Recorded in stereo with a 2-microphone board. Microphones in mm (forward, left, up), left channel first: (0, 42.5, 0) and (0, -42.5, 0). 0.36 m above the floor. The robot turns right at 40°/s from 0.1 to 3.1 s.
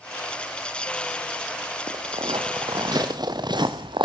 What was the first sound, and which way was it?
Footsteps, 85° right.